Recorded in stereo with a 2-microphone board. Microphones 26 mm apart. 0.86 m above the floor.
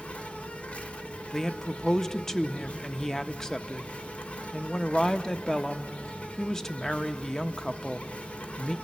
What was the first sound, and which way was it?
An insect, 55° left (ahead or behind).